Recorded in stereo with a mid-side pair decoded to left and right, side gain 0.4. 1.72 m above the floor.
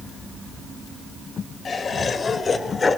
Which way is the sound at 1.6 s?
50° left.